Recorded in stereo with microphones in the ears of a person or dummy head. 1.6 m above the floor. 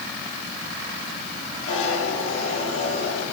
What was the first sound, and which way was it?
A zipper, 80° left.